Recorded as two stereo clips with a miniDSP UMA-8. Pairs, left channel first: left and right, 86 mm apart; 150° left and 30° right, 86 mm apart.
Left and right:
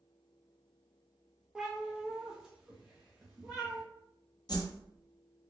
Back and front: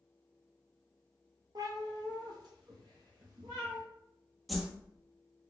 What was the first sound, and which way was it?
A cat meowing, 5° right.